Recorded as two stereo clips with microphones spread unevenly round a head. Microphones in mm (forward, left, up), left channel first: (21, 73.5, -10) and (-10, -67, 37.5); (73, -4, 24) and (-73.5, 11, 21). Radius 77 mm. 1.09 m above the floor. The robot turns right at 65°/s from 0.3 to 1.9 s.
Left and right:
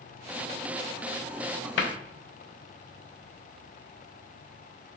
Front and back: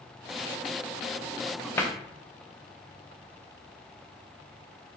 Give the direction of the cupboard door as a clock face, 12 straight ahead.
10 o'clock.